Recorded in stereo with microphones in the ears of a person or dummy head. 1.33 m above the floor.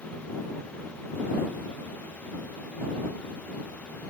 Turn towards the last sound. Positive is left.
No sound to turn to.